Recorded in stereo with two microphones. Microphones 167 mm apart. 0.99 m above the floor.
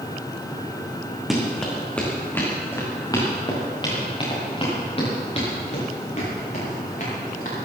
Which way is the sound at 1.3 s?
Centre (ahead or behind).